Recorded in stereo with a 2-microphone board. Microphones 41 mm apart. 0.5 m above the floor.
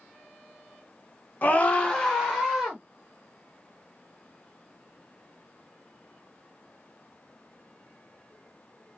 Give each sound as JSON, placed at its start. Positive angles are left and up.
{"t": 1.4, "sound": "a scream", "side_deg": 40, "distance_m": 1.1}